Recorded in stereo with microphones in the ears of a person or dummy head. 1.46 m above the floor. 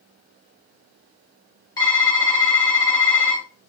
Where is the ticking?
No ticking in this recording.